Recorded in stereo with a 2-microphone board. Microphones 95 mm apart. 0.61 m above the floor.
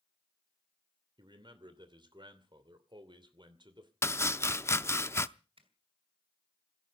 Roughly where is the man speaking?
Right.